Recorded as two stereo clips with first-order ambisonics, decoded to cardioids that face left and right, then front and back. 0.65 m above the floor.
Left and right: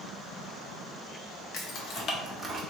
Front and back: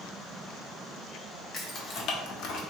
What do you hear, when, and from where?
1.5 s keys jangling: 65° left, 0.8 m; by 2.6 s 30° right, 0.6 m